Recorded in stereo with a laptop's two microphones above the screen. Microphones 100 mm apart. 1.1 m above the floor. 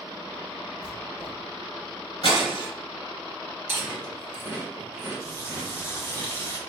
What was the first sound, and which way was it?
Writing, 40° left (ahead or behind).